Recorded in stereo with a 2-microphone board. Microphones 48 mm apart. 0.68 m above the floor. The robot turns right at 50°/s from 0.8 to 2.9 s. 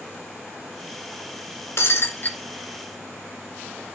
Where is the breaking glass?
110° left, 1.5 m; by 2.4 s 140° left, 1.5 m.